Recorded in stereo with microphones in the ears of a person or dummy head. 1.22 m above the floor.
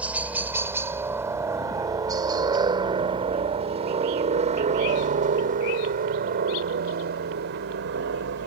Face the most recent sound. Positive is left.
turn(degrees=-55)  # may be behind; listen again after turning